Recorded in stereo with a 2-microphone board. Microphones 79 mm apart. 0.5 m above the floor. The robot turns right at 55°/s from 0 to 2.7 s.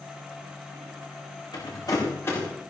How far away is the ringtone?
No ringtone in this recording.